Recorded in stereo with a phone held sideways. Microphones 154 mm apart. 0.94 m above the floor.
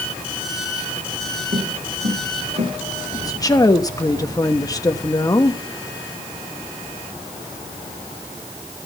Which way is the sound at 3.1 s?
25° left (ahead or behind).